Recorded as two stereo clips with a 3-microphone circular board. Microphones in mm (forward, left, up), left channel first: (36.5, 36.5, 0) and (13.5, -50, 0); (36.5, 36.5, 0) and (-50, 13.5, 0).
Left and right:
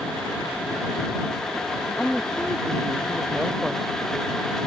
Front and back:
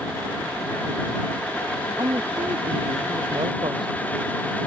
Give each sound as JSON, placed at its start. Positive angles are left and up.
{"t": 2.0, "sound": "a woman speaking", "azimuth_deg": 165}